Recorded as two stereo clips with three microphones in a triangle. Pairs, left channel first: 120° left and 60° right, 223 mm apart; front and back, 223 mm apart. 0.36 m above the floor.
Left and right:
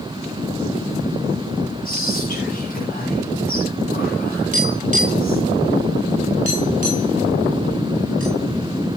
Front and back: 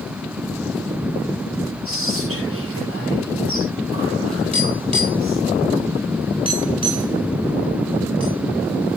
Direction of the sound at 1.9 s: 170° left.